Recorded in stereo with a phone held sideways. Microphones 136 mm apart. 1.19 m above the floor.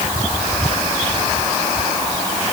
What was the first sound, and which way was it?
Only background noise.